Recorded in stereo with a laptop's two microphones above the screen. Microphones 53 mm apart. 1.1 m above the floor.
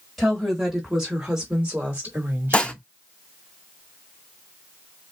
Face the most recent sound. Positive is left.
turn(degrees=20)  # may be behind; listen again after turning